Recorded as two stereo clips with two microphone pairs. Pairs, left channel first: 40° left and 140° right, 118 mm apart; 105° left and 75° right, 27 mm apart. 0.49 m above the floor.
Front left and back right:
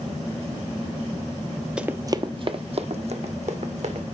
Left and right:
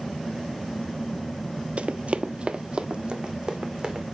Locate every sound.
1.8 s running footsteps: 60° right, 0.7 m; by 4.0 s 125° right, 2.5 m